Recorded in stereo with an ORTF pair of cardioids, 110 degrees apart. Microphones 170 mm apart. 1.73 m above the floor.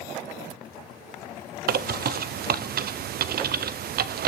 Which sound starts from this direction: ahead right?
A bird, at 1.7 s.